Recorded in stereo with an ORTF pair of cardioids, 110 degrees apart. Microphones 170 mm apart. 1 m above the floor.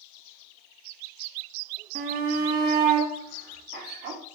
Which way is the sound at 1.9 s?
65° right.